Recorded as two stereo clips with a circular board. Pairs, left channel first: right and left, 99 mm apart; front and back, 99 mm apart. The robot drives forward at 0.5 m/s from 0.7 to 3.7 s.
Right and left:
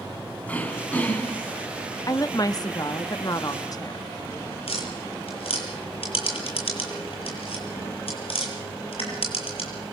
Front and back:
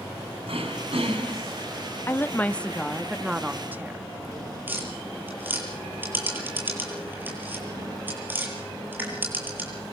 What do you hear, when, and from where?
0.5 s throat clearing: 165° right, 6.5 m
2.1 s a woman speaking: 55° right, 1.1 m; by 4.0 s 115° right, 1.1 m
4.7 s tapping: 110° right, 8.5 m